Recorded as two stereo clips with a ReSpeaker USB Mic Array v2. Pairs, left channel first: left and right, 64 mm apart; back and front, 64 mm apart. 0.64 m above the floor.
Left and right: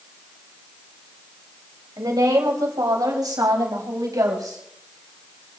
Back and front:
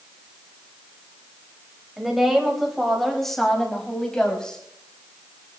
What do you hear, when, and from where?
2.0 s a woman speaking: 85° right, 4 m; by 4.6 s 105° right, 5 m